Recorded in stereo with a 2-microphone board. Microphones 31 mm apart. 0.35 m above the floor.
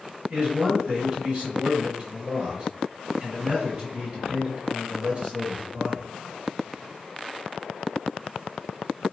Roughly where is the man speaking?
Right.